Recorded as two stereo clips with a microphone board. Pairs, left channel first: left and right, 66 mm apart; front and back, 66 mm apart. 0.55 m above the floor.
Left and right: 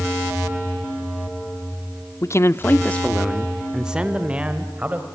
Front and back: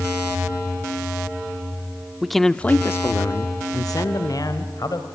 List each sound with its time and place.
2.2 s a man speaking: 95° left, 0.9 m; by 5.1 s 25° right, 2.5 m